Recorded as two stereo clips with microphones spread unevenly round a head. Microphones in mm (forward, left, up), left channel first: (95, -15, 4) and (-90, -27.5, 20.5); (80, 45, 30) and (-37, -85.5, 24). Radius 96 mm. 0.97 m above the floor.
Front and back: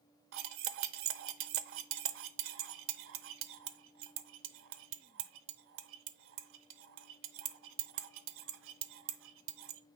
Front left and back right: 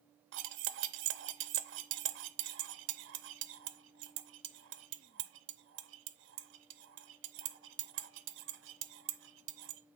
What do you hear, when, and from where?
0.3 s cutlery clinking: 165° right, 0.7 m